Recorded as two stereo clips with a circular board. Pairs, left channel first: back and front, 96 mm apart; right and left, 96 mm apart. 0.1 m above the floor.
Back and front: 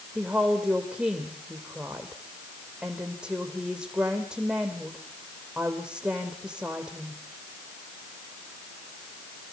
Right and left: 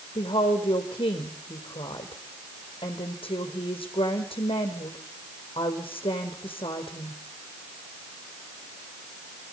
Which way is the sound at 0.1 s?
80° right.